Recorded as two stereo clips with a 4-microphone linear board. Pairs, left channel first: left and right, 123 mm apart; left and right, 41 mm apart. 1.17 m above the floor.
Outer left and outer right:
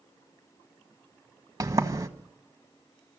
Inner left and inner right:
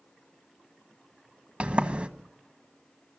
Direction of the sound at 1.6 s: 25° right (ahead or behind).